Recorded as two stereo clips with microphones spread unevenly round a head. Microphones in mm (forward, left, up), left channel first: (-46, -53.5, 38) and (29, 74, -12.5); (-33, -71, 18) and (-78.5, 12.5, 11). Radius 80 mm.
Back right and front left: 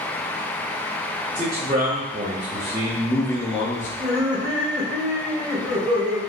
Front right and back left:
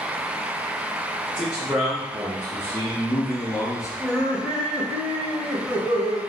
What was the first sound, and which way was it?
A man speaking, 30° left.